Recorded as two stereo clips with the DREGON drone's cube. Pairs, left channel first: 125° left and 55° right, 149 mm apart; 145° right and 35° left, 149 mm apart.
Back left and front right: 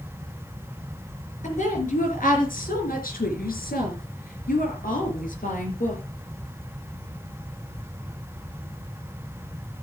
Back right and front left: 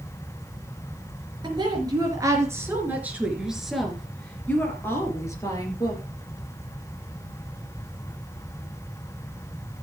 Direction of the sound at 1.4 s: 90° left.